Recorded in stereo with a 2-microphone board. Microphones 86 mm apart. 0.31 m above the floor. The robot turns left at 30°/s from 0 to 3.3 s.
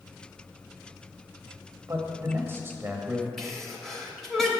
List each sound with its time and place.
1.9 s a man speaking: 110° right, 1.2 m; by 3.3 s 155° right, 1.2 m
3.4 s a sneeze: 5° left (ahead or behind), 1.0 m